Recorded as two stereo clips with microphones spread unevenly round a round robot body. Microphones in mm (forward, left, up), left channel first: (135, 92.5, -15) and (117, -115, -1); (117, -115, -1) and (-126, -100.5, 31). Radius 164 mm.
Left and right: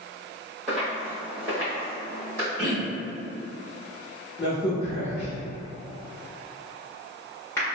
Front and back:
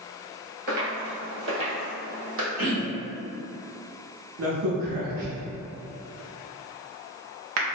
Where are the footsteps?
175° left, 1.1 m; by 2.5 s 170° right, 2 m.